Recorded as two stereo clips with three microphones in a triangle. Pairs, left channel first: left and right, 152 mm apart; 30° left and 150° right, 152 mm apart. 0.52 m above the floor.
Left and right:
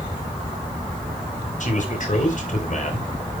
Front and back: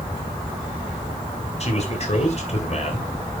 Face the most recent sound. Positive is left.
turn(degrees=65)